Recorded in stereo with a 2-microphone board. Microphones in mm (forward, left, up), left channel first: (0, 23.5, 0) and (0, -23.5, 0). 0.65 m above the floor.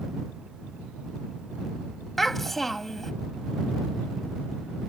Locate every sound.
2.2 s a child speaking: 5° left (ahead or behind)